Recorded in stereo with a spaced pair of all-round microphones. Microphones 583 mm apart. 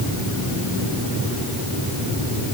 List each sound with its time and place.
Only background noise.